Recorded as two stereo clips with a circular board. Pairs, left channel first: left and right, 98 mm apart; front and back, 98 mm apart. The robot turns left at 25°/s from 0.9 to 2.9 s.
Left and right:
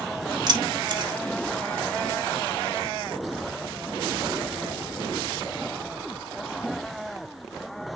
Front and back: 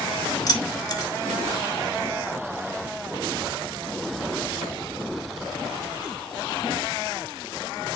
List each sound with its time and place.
0.5 s keys jangling: 45° right, 1.6 m; by 1.1 s 50° right, 1.6 m